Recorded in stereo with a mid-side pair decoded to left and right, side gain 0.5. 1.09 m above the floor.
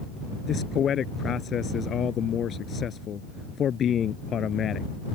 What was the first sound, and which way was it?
A man speaking, 50° left.